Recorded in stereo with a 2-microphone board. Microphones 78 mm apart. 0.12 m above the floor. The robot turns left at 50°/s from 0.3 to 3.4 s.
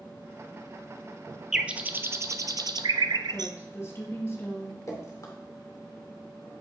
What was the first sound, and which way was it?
A bird, 10° right (ahead or behind).